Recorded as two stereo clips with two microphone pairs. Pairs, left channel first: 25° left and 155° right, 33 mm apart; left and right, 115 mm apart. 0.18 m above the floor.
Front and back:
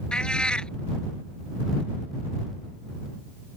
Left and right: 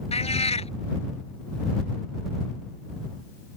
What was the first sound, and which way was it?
A cat meowing, 85° left.